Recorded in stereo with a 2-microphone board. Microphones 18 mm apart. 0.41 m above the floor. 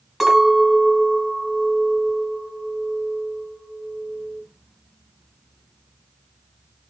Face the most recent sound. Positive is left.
turn(degrees=-5)  # may be behind; listen again after turning